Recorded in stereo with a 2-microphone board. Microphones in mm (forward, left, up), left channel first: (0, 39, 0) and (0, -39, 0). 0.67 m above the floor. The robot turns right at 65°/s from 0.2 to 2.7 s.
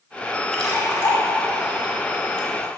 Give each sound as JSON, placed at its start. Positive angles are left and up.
{"t": 0.5, "sound": "a splash", "side_deg": 5, "distance_m": 1.3}